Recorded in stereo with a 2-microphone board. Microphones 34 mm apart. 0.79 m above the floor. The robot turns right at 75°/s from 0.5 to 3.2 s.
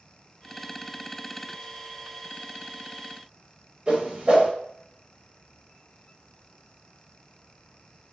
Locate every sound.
3.9 s a whoosh: 30° right (ahead or behind), 0.6 m